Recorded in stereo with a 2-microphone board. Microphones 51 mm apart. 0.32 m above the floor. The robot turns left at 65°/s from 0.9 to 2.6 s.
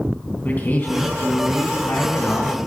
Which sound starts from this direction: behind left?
A man speaking, at 0.5 s.